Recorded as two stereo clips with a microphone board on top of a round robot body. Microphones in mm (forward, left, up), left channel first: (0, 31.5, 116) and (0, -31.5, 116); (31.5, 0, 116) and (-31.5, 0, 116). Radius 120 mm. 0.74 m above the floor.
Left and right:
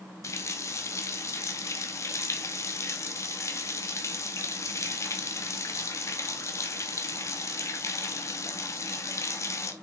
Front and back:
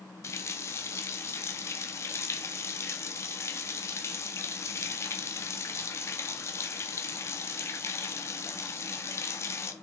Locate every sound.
0.2 s a running tap: 45° left, 0.8 m